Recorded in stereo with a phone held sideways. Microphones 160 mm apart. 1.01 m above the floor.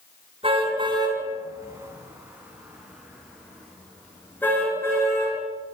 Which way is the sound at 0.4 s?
35° right (ahead or behind).